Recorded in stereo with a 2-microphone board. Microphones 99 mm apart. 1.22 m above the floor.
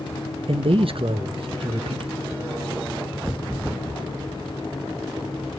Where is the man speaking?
65° right (ahead or behind), 1.0 m.